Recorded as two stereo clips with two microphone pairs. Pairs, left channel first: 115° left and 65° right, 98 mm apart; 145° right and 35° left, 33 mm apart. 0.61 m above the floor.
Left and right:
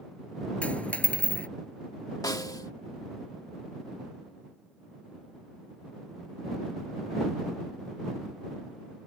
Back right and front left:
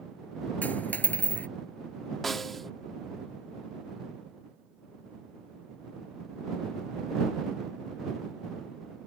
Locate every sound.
0.6 s a dropped coin: 170° right
2.2 s a snare drum: 135° left